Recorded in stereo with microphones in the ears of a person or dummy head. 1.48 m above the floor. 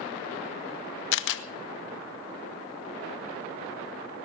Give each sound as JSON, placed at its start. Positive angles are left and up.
{"t": 1.1, "sound": "a camera shutter", "side_deg": 70, "distance_m": 1.0}